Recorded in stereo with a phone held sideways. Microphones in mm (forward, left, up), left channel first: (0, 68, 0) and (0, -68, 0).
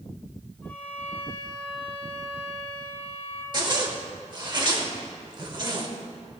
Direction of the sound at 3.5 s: 35° right (ahead or behind).